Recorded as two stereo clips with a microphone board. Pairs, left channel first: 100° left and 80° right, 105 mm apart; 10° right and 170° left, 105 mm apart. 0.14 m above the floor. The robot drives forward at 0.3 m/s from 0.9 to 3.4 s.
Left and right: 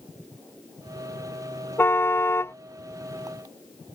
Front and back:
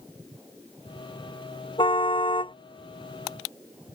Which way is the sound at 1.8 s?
30° left.